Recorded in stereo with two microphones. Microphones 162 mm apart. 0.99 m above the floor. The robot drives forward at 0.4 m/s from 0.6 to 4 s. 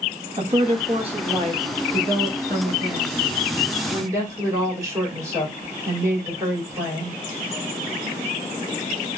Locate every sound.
0.4 s a woman speaking: 40° right (ahead or behind), 1.3 m; by 7.2 s 20° right (ahead or behind), 2.5 m